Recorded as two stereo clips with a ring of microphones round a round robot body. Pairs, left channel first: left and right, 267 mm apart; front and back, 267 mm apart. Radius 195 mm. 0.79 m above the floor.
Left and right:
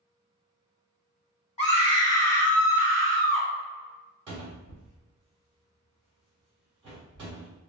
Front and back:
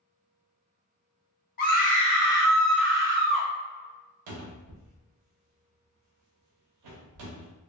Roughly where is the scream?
Ahead left.